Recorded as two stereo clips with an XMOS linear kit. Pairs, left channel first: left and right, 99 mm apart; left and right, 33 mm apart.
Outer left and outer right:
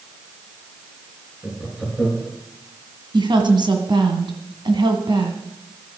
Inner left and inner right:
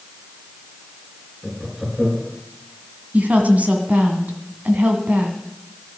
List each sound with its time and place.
1.4 s laughter: 5° right (ahead or behind), 3.5 m
3.1 s a woman speaking: 55° right (ahead or behind), 1.8 m